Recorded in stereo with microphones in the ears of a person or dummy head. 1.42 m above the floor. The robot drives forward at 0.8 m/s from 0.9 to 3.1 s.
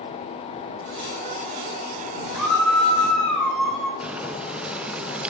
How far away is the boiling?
About 0.5 m.